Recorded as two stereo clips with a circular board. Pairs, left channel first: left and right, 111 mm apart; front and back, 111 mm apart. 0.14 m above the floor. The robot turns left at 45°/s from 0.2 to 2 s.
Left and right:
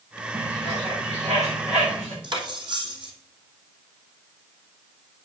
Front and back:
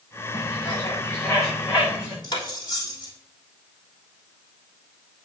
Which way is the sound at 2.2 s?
50° right.